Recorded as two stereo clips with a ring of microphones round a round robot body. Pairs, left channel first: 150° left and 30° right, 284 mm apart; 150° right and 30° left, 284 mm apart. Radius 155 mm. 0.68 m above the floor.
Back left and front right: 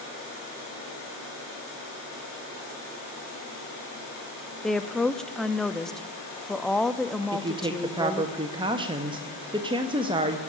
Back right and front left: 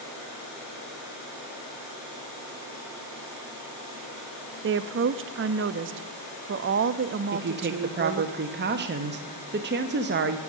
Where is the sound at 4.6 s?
60° left, 0.6 m.